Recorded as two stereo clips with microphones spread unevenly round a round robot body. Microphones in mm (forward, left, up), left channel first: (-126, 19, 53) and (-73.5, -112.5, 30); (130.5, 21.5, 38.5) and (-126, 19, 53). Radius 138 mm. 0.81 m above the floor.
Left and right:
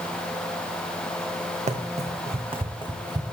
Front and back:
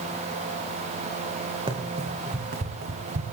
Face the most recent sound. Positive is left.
turn(degrees=-130)